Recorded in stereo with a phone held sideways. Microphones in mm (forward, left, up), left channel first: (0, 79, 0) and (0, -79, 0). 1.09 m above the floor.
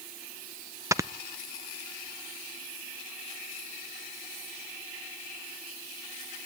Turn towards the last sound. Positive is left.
turn(degrees=-20)  # may be behind; listen again after turning